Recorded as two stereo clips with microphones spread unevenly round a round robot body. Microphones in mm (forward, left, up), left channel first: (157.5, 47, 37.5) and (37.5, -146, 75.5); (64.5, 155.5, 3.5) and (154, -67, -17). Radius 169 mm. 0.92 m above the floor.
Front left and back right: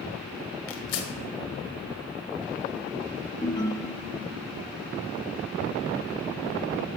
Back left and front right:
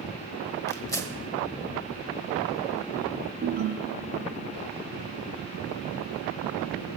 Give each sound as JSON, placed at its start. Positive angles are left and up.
{"t": 0.7, "sound": "tearing paper", "azimuth_deg": 40, "distance_m": 1.4}
{"t": 3.4, "sound": "a ringtone", "azimuth_deg": -15, "distance_m": 0.7}